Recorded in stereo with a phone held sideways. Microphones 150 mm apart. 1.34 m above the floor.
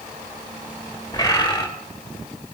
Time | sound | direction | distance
1.1 | a bird | 25° left (ahead or behind) | 2.5 m